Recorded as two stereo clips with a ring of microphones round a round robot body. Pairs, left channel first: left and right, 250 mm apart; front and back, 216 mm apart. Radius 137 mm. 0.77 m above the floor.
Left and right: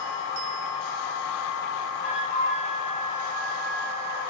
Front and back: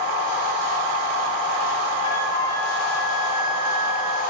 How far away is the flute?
About 6 m.